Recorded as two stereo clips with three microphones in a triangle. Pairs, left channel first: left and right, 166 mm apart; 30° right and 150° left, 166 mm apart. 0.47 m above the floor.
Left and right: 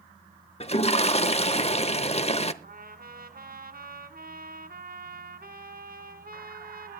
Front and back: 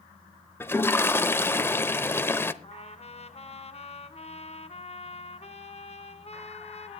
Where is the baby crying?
I don't hear a baby crying.